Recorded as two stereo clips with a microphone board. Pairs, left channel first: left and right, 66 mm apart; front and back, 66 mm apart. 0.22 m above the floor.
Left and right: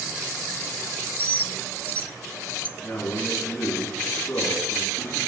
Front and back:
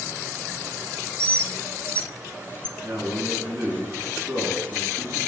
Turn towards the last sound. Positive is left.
turn(degrees=140)